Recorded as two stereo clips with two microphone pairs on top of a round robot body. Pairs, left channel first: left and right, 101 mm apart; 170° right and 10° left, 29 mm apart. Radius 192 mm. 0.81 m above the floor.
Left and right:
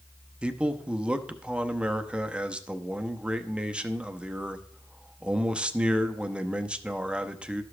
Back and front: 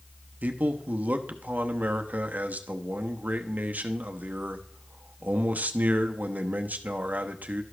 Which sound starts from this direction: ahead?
A man speaking, at 0.4 s.